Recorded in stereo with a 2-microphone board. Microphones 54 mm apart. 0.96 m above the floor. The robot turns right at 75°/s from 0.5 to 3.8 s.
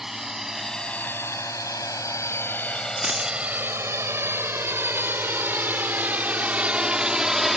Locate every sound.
0.0 s a drone: 5° right (ahead or behind)
3.0 s a dropped coin: 20° right (ahead or behind); by 3.4 s 45° right (ahead or behind)